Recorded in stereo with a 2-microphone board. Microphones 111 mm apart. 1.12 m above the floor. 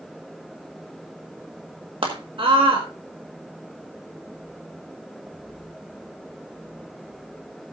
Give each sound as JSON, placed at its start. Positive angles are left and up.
{"t": 2.0, "sound": "a scream", "side_deg": -50, "distance_m": 1.6}